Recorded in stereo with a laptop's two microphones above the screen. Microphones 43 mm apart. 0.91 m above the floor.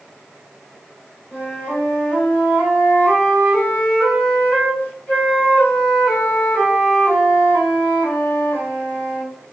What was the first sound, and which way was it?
A flute, 50° left (ahead or behind).